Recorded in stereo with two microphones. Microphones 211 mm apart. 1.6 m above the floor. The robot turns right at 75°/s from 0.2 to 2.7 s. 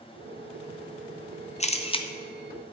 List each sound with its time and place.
1.6 s a camera shutter: 30° left (ahead or behind), 0.7 m; by 2.1 s 20° left (ahead or behind), 0.7 m